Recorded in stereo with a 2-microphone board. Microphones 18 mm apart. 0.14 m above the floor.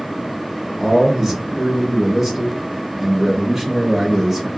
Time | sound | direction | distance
0.8 | a man speaking | 20° right (ahead or behind) | 1.5 m